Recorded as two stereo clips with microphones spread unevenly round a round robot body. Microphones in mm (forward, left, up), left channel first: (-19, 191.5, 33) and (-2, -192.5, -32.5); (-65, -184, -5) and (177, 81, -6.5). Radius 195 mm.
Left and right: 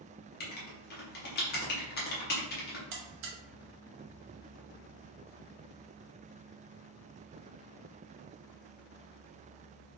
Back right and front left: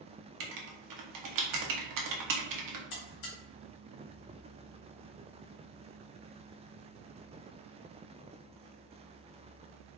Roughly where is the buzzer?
Right.